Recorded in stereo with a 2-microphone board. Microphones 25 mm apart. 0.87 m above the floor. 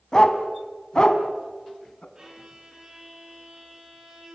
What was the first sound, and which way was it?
A dog barking, 25° left (ahead or behind).